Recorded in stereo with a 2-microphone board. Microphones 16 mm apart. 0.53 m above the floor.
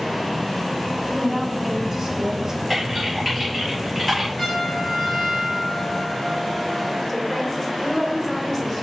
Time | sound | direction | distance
1.1 | a woman speaking | centre (ahead or behind) | 3 m
2.7 | typing on a keyboard | 10° left (ahead or behind) | 4 m
4.4 | a trumpet | 35° left (ahead or behind) | 3 m
7.1 | a woman speaking | 15° left (ahead or behind) | 1.9 m